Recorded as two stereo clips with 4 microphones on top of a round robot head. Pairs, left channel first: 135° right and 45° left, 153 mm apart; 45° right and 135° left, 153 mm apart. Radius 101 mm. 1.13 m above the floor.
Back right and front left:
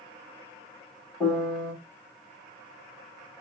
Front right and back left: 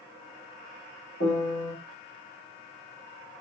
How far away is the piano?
About 2.5 m.